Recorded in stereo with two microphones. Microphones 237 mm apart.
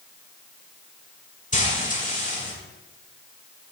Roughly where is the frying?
Left.